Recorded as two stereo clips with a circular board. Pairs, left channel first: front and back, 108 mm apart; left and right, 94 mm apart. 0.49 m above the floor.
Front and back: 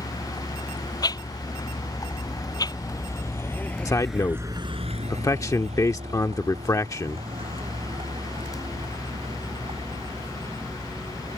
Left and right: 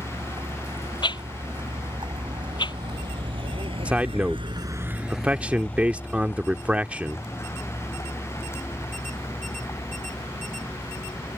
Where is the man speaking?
25° right.